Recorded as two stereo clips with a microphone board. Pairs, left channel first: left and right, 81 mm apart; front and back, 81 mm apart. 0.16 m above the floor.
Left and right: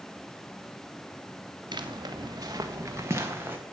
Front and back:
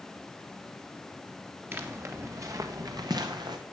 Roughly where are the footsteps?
Behind right.